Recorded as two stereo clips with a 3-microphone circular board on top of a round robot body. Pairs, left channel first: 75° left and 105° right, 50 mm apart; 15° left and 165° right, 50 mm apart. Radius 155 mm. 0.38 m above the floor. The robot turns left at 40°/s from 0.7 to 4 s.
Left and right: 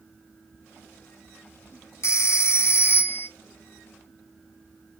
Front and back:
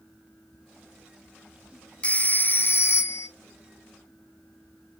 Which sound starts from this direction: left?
A phone ringing, at 2.0 s.